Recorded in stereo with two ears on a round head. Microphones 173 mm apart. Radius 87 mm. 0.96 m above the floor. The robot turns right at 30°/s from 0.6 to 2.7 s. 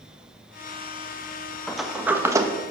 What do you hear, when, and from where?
1.7 s a sliding door: centre (ahead or behind), 1.0 m; by 2.5 s 20° right (ahead or behind), 1.0 m